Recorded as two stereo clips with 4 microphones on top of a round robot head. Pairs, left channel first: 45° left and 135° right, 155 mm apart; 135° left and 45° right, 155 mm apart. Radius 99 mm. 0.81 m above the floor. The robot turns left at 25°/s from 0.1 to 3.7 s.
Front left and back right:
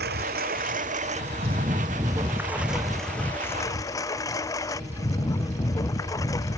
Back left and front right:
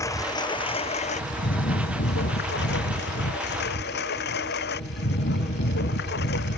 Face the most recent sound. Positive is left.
turn(degrees=115)